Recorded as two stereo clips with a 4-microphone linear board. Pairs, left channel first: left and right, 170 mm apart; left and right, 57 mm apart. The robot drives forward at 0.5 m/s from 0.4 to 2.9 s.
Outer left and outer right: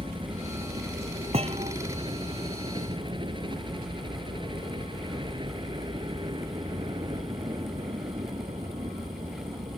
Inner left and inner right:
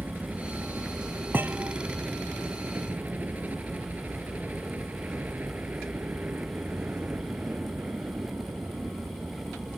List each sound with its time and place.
0.0 s a helicopter: 30° right (ahead or behind)
1.3 s a thud: 35° right (ahead or behind)